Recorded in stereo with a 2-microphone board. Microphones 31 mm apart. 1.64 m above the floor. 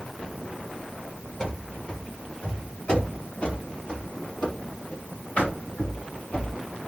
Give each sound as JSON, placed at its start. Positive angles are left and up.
{"t": 1.4, "sound": "running footsteps", "side_deg": 30, "distance_m": 2.0}